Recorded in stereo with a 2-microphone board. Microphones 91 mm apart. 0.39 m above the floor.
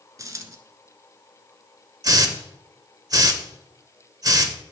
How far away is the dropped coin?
About 0.9 m.